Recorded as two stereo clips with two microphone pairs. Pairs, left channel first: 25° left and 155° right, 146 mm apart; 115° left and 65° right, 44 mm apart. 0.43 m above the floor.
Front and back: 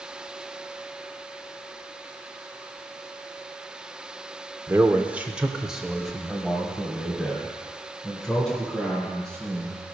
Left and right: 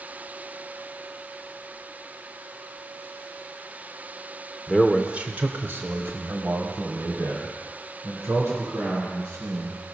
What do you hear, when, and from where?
4.7 s a man speaking: 145° right, 0.8 m; by 9.8 s 60° right, 4.5 m